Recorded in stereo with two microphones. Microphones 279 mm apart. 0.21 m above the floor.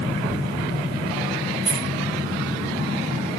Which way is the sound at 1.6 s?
45° right (ahead or behind).